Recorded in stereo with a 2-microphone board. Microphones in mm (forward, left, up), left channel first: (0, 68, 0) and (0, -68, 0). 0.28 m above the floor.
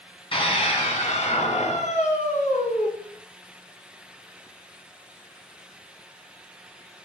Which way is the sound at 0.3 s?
40° left (ahead or behind).